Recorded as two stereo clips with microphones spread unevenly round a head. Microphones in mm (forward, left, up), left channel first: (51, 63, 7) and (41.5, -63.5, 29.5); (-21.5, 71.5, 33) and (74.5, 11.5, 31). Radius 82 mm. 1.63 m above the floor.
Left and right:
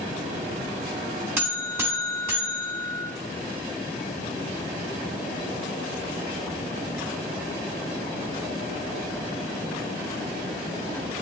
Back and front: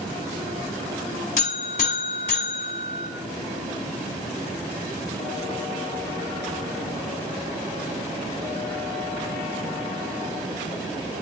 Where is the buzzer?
165° right, 1.9 m.